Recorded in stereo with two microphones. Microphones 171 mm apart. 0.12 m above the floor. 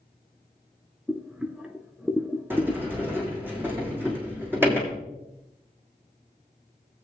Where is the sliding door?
10° right (ahead or behind), 3 m.